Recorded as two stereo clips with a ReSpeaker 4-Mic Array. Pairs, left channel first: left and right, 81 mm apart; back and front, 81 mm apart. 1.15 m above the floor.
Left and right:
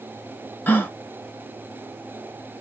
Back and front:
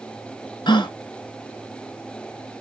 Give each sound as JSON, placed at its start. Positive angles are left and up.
{"t": 0.7, "sound": "a gasp", "azimuth_deg": 155, "distance_m": 0.8}